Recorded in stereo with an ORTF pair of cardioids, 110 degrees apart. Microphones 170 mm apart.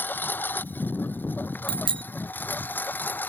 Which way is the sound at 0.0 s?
10° left.